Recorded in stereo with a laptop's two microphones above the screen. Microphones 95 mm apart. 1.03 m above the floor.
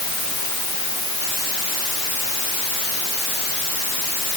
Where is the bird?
No bird in this recording.